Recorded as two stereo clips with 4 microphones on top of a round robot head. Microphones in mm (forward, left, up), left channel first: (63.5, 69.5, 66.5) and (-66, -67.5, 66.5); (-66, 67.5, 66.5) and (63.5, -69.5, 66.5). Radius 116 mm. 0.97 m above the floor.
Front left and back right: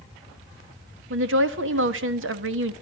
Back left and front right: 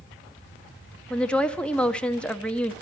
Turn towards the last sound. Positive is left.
turn(degrees=-140)